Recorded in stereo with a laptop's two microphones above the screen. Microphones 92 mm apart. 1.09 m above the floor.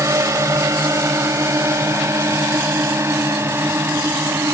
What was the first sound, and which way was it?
A drone, 30° right (ahead or behind).